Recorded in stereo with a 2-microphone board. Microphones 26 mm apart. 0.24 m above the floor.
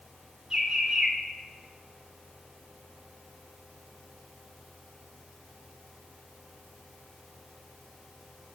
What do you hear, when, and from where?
0.5 s a bird: 25° right (ahead or behind), 2 m